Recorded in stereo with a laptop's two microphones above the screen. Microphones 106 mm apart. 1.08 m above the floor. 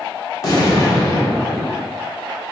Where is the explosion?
35° left (ahead or behind), 0.8 m.